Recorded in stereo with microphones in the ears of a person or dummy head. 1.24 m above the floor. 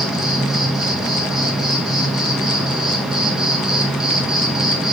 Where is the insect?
5° right (ahead or behind), 0.8 m.